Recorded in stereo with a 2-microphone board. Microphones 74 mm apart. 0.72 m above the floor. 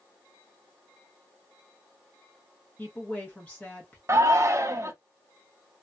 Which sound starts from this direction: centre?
A woman speaking, at 2.8 s.